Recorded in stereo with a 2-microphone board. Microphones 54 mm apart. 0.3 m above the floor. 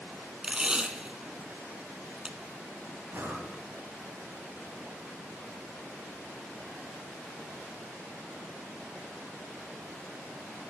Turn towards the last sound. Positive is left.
turn(degrees=-45)  # may be behind; listen again after turning